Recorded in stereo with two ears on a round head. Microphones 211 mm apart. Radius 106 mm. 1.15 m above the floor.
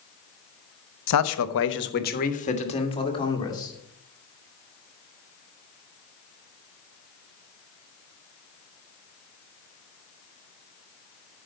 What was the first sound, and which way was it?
A man speaking, 85° left.